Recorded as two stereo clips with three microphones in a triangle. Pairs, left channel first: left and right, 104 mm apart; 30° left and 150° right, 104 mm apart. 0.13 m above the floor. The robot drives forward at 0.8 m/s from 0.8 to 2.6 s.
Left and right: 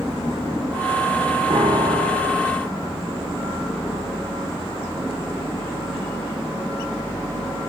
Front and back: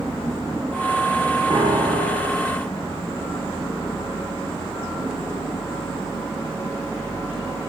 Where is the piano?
100° right, 3.5 m; by 2.5 s 115° right, 4 m.